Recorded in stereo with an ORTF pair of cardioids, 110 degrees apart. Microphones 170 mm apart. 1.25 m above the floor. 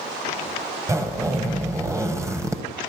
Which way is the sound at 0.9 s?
20° right.